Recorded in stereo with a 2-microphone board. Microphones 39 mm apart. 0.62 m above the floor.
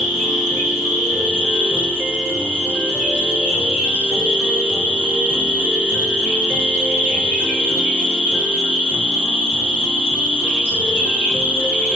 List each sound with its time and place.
0.0 s an insect: 35° right (ahead or behind), 1.5 m